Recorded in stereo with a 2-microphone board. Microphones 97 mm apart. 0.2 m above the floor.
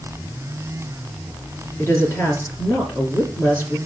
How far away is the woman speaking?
About 3 m.